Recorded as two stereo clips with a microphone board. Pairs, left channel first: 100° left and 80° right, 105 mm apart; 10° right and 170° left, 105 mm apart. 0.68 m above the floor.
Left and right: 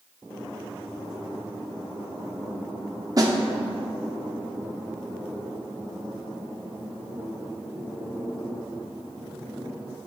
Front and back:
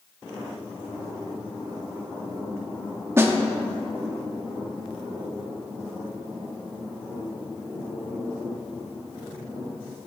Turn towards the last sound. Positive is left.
turn(degrees=-125)